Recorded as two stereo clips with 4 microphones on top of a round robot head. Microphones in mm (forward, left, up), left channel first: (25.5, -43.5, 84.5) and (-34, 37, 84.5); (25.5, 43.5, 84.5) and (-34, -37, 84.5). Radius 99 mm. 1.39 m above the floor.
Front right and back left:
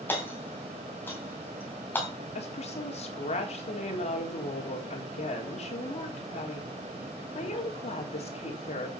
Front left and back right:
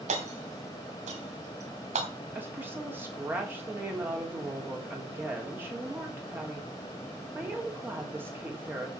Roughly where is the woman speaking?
Ahead right.